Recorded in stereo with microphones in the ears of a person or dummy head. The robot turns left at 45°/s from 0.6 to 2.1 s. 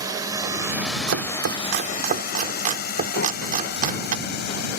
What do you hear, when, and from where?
0.0 s a drone: 15° right (ahead or behind); by 4.8 s 65° left (ahead or behind)
1.1 s chopping: 85° right; by 4.2 s 40° right (ahead or behind)
3.2 s breathing: 60° left (ahead or behind)